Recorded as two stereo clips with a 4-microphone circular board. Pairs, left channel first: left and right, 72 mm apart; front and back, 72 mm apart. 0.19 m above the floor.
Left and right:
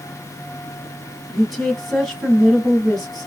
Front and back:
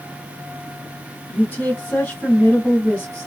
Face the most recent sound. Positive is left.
turn(degrees=10)